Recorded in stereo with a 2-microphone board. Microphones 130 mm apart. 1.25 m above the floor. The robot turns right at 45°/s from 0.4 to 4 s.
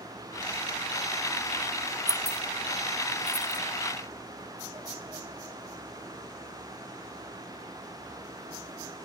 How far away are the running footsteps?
I don't hear running footsteps.